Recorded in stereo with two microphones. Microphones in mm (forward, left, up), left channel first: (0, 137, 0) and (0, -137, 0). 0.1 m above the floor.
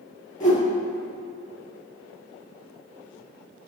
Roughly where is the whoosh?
Left.